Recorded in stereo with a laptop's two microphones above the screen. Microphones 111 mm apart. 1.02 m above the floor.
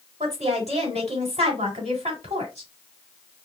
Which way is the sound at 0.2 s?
80° right.